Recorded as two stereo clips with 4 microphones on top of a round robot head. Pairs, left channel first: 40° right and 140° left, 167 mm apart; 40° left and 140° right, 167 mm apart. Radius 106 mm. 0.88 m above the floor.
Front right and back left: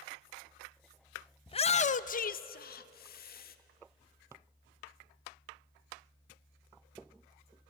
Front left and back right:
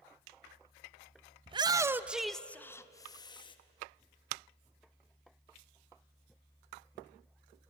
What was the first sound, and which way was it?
A shout, 90° right.